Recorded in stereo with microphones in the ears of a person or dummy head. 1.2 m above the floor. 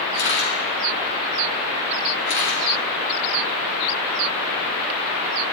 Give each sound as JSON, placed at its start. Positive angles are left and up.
{"t": 0.1, "sound": "a camera shutter", "side_deg": 55, "distance_m": 4.0}